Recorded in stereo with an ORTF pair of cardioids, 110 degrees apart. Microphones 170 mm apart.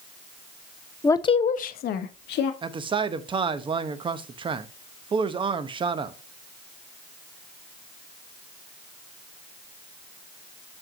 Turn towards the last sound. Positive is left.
turn(degrees=-30)